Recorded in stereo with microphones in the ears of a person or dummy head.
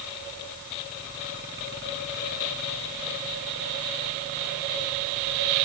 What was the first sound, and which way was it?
Only background noise.